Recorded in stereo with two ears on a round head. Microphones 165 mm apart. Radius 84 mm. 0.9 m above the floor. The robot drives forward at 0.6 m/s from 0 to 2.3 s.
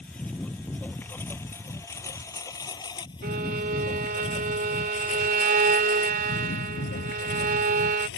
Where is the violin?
55° right (ahead or behind).